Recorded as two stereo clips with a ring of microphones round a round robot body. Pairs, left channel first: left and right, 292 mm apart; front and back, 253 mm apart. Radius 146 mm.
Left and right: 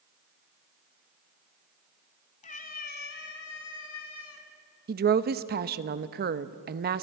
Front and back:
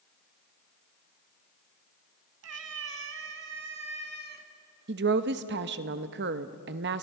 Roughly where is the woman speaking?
Behind right.